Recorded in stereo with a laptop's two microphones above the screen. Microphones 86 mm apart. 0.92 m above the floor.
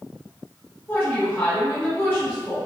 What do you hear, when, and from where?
0.9 s a woman speaking: 20° left (ahead or behind), 0.8 m